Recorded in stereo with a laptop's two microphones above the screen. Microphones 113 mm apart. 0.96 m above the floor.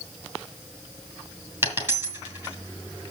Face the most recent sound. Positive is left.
turn(degrees=-25)  # may be behind; listen again after turning